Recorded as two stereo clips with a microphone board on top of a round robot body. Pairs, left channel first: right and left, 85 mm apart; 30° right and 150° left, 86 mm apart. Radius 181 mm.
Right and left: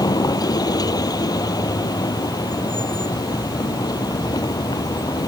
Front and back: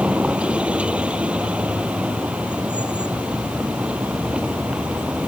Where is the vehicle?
130° right.